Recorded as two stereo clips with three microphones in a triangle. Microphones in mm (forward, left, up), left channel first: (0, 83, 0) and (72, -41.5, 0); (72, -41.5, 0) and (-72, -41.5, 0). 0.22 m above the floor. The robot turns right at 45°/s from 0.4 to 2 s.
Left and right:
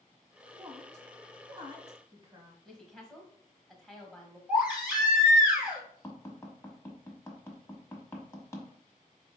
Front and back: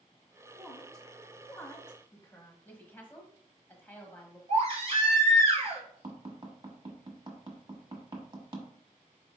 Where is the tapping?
175° left, 1.1 m.